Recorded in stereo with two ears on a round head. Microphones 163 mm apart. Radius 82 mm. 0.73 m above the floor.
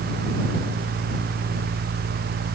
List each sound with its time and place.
Only background noise.